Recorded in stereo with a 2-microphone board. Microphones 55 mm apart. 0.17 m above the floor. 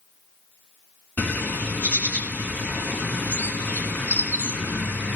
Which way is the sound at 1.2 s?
25° left (ahead or behind).